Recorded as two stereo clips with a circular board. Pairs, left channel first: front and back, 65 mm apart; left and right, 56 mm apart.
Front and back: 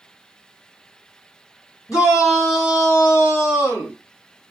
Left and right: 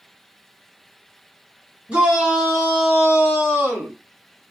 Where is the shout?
25° right, 2.5 m; by 4.0 s 35° right, 1.7 m.